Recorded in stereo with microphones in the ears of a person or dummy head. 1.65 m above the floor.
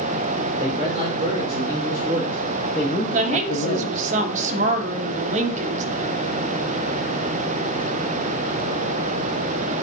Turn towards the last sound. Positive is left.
turn(degrees=-45)  # may be behind; listen again after turning